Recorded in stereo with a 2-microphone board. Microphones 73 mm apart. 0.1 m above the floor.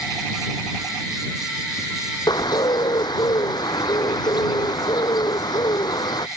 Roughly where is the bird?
Left.